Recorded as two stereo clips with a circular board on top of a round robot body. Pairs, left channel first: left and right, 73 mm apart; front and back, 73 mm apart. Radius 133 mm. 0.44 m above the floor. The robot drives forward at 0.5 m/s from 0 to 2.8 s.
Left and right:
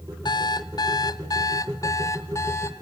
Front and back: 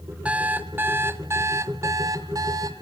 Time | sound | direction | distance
0.2 | an alarm clock | 110° left | 1.3 m